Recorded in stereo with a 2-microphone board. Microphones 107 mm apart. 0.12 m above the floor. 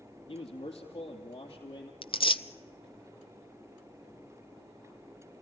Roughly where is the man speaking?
Left.